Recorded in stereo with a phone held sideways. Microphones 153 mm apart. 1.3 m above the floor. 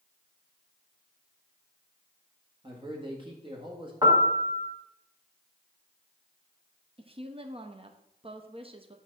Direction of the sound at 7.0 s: 35° right (ahead or behind).